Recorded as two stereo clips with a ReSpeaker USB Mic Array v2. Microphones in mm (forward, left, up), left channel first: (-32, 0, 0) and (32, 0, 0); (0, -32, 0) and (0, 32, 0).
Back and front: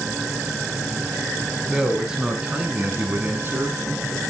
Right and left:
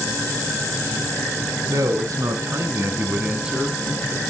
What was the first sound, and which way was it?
A man speaking, 80° left.